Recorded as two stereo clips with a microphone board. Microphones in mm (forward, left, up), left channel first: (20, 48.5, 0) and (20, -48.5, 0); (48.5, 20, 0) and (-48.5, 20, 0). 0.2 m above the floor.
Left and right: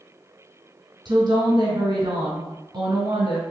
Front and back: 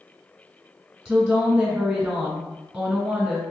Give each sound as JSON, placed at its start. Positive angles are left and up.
{"t": 1.1, "sound": "a woman speaking", "azimuth_deg": -95, "distance_m": 1.6}